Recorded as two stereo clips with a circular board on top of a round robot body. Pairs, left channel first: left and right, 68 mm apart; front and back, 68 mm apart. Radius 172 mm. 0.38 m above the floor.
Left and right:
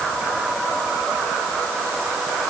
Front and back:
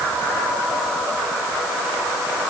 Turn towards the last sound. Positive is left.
No sound to turn to.